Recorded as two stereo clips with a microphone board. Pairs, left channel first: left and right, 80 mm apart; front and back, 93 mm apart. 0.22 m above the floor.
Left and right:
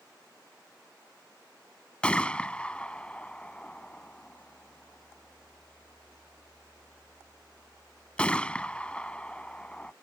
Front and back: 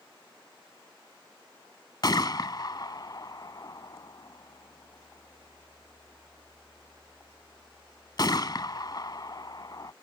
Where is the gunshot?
20° left.